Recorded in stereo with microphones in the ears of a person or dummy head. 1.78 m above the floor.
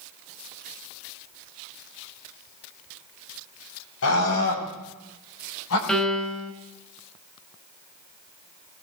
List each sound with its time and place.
4.0 s a scream: 80° left, 5 m
5.9 s a piano: centre (ahead or behind), 3 m